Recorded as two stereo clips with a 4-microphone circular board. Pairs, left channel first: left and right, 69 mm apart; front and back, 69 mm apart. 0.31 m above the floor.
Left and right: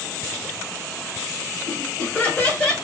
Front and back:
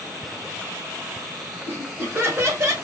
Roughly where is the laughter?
Behind left.